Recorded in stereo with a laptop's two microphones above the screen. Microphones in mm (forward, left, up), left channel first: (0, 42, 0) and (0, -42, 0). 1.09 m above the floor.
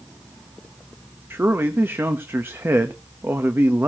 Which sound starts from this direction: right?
A man speaking, at 1.3 s.